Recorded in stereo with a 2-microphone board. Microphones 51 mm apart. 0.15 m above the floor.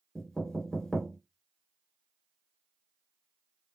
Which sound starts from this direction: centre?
Knocking, at 0.1 s.